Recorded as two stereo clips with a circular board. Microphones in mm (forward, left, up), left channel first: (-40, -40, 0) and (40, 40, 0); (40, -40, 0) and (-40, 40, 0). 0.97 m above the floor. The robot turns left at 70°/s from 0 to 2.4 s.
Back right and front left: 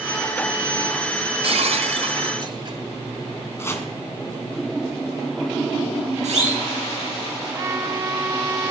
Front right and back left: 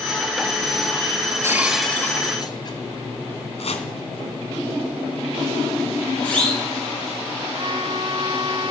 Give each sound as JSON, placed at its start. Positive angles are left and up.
{"t": 1.4, "sound": "breaking glass", "azimuth_deg": 70, "distance_m": 1.9}
{"t": 3.6, "sound": "chopping", "azimuth_deg": -70, "distance_m": 2.5}
{"t": 6.2, "sound": "a siren", "azimuth_deg": 35, "distance_m": 8.0}
{"t": 7.5, "sound": "a trumpet", "azimuth_deg": 105, "distance_m": 1.2}